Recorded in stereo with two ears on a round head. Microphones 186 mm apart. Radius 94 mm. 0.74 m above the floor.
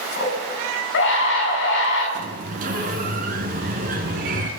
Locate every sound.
0.2 s a scream: 65° left (ahead or behind), 6 m
2.1 s a sliding door: 40° right (ahead or behind), 3 m